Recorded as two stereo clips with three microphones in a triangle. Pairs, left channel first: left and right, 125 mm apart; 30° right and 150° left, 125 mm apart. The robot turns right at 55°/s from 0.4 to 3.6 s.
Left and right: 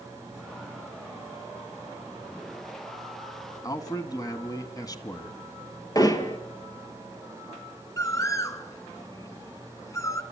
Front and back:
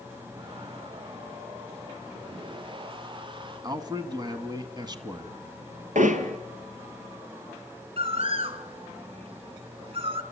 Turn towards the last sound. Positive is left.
turn(degrees=145)